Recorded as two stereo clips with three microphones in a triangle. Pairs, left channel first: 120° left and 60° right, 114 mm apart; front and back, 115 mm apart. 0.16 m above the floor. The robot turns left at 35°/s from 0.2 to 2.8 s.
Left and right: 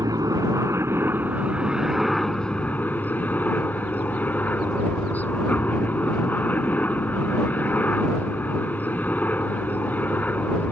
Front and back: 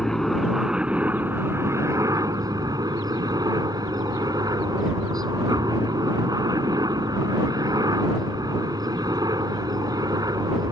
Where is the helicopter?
85° right; by 10.7 s 175° right.